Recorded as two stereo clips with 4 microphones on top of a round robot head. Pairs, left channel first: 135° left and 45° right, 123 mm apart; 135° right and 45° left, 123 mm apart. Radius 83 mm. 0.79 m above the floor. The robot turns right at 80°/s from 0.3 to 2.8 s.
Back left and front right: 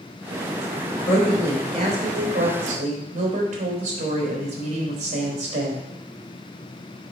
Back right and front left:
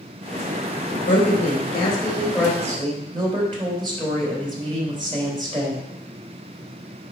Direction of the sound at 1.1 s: 150° right.